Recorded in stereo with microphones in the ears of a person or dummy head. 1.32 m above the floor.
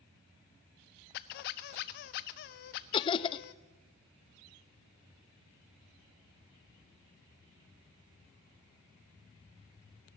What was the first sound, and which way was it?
A squeak, 40° left (ahead or behind).